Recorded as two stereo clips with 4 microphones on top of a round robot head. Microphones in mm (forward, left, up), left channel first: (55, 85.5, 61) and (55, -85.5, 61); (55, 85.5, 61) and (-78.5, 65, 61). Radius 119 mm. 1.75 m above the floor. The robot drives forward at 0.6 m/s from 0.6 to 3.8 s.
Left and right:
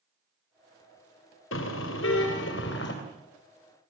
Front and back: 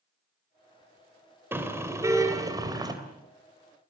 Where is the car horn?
115° left, 3 m; by 2.9 s 130° left, 3.5 m.